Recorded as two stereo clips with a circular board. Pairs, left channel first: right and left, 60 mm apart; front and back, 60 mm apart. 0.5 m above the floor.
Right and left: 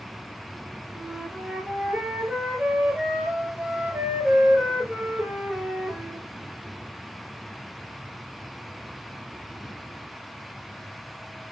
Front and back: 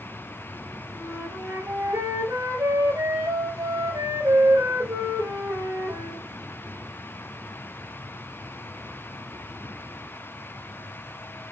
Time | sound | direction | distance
0.9 | a flute | 160° left | 2.5 m